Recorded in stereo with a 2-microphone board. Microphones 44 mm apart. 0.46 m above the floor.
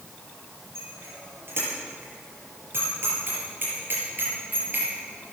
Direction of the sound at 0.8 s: 65° right (ahead or behind).